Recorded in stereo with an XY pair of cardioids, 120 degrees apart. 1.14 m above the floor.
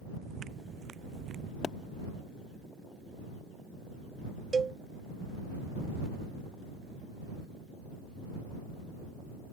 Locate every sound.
0.2 s footsteps: 45° right; by 1.5 s 60° right
1.6 s a pop: 35° left
4.5 s a cowbell: 30° right